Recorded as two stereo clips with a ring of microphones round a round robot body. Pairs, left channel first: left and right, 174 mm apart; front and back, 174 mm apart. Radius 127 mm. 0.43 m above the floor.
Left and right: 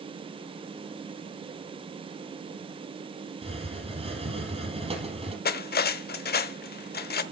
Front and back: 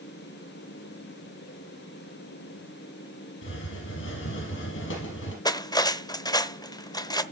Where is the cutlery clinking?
65° left, 0.9 m.